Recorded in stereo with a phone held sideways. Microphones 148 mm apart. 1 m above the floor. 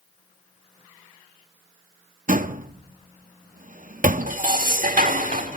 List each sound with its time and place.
2.3 s a door slam: 65° right (ahead or behind), 0.8 m
4.3 s dishes clattering: 65° right (ahead or behind), 1.7 m